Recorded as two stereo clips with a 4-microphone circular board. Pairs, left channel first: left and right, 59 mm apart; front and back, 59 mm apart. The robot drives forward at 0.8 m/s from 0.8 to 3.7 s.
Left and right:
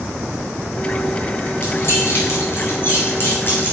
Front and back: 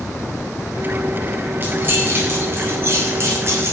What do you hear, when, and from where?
1.6 s keys jangling: 125° left, 4 m; by 3.7 s 140° left, 5 m